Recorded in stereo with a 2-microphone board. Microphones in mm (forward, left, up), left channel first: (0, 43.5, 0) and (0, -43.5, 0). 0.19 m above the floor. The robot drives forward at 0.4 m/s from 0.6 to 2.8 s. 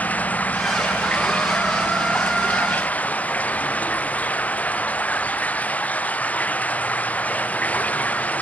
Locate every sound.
0.0 s running water: 15° left (ahead or behind)